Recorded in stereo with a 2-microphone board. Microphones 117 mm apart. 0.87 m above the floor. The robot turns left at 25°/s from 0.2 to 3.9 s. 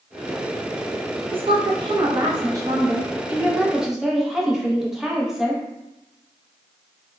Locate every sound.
1.3 s a woman speaking: 110° right, 0.5 m; by 5.6 s 175° right, 0.5 m